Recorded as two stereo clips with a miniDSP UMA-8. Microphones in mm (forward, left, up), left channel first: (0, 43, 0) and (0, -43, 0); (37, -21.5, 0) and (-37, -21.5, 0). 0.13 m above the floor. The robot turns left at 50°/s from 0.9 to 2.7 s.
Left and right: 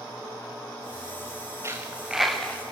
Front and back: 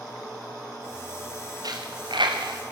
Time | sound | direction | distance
1.6 | a dropped coin | 150° right | 4 m